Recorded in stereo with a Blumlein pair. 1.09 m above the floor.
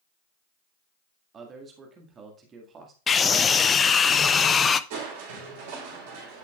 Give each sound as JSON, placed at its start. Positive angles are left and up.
{"t": 1.3, "sound": "a man speaking", "azimuth_deg": -25, "distance_m": 1.8}
{"t": 3.1, "sound": "a scream", "azimuth_deg": 20, "distance_m": 0.6}
{"t": 4.9, "sound": "crushing", "azimuth_deg": -55, "distance_m": 4.0}